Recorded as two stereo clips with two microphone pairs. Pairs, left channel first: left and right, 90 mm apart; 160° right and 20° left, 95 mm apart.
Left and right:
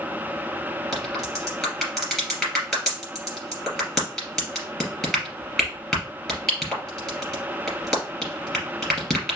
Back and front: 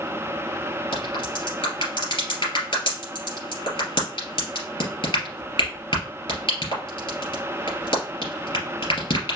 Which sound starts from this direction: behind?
A crack, at 0.9 s.